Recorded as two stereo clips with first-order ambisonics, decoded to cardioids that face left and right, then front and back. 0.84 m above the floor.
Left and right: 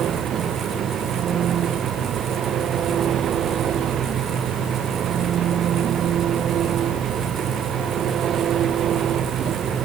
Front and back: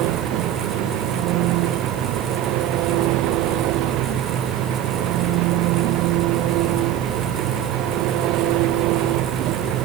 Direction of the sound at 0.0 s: 150° right.